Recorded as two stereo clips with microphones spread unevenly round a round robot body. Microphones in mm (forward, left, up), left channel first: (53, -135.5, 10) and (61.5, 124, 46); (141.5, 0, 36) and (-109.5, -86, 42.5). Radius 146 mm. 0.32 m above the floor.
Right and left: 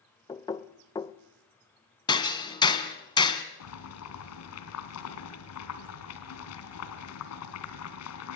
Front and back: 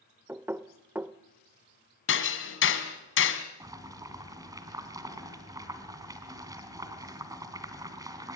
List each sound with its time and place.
0.3 s knocking: 90° right, 0.7 m
2.1 s hammering: 20° right, 2 m
3.6 s boiling: 85° right, 3 m